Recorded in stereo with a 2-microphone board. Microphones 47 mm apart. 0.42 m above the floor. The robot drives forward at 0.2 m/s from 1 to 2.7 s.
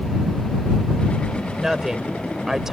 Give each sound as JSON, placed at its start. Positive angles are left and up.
{"t": 1.6, "sound": "a woman speaking", "side_deg": -15}